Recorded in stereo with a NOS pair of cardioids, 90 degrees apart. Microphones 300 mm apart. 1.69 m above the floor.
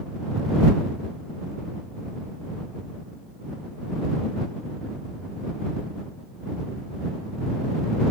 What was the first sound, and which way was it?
Only background noise.